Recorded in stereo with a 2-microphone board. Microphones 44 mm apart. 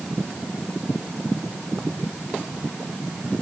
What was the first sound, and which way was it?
Only background noise.